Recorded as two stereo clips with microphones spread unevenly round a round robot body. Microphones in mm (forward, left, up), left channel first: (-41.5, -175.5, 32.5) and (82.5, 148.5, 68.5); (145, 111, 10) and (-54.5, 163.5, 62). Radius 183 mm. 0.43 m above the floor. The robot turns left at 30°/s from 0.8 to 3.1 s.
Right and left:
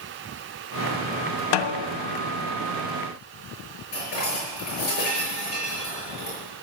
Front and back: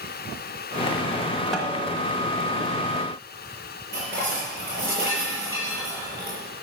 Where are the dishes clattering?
85° right, 6 m.